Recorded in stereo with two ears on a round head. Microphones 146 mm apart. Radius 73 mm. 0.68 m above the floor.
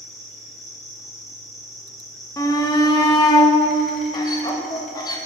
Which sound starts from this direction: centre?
An insect, at 0.0 s.